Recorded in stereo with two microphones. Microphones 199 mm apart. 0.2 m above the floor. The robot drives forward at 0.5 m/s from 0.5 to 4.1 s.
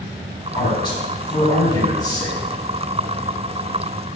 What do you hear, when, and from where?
0.6 s a man speaking: 20° left (ahead or behind), 1.1 m